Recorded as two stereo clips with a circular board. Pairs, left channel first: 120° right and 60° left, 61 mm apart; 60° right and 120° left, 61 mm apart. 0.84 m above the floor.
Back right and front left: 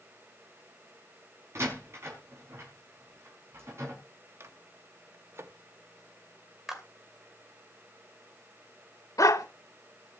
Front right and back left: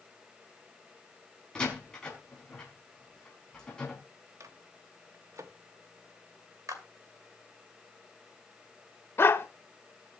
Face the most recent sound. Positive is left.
turn(degrees=-110)